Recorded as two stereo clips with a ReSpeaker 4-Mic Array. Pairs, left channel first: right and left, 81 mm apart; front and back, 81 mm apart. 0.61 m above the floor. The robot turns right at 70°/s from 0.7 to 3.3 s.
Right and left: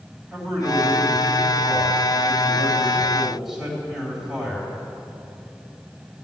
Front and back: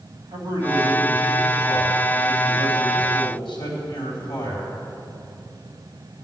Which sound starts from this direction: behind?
A man speaking, at 0.3 s.